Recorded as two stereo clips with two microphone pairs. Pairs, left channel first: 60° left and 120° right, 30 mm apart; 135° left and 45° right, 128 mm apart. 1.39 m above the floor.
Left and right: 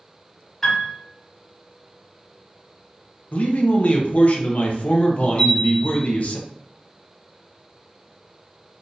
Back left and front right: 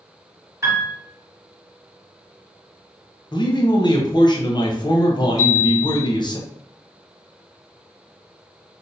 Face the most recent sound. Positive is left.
turn(degrees=80)